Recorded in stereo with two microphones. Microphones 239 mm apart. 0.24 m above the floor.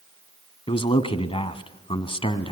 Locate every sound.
0.7 s a man speaking: 20° left (ahead or behind), 1.5 m